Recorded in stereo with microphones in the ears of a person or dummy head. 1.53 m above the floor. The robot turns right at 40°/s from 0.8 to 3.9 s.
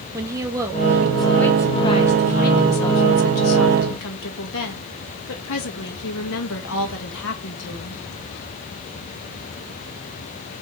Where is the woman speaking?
15° right, 1.9 m; by 8.0 s 110° left, 1.9 m.